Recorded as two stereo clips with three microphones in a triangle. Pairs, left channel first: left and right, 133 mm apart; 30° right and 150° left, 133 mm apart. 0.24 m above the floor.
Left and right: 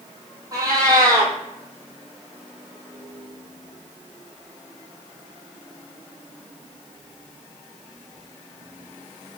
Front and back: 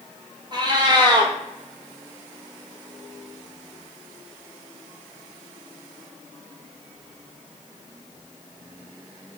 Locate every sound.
0.5 s a cat meowing: 150° right, 0.9 m